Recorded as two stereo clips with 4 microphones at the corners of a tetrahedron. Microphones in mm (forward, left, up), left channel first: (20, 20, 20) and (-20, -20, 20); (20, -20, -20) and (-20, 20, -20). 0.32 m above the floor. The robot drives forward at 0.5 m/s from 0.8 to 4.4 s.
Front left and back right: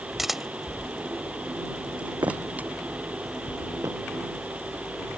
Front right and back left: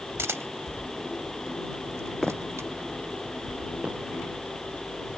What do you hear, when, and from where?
0.2 s a camera shutter: 140° left; by 2.7 s 165° left
2.2 s footsteps: 130° right; by 4.0 s 160° right